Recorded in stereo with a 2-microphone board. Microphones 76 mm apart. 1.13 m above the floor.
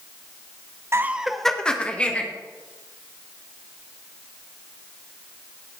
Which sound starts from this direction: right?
Laughter, at 0.9 s.